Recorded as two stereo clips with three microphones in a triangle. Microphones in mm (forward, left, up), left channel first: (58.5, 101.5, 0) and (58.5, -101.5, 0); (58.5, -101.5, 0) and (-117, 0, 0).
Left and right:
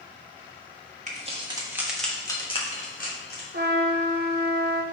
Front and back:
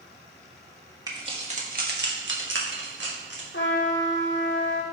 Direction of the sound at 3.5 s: 55° right.